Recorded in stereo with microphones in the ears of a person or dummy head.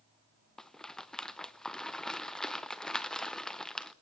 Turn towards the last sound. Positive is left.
turn(degrees=0)  # may be behind; listen again after turning